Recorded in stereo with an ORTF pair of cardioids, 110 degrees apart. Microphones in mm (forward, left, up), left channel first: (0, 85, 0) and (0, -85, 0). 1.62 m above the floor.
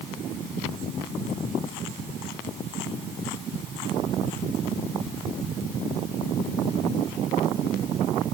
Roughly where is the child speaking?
I don't hear a child speaking.